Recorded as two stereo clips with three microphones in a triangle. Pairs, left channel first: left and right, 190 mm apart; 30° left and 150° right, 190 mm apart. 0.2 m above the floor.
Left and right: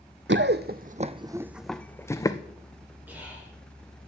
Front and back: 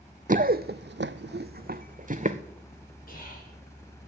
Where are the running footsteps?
105° right, 0.6 m; by 2.4 s 160° left, 0.9 m.